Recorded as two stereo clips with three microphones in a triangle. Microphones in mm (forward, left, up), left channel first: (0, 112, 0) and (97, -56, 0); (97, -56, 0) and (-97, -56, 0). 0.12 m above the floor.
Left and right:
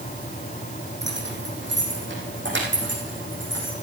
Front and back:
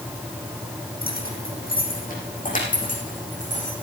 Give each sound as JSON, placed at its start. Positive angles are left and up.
{"t": 1.0, "sound": "keys jangling", "azimuth_deg": -40, "distance_m": 3.5}